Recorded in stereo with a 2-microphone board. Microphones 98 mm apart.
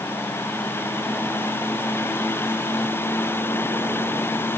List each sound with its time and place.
Only background noise.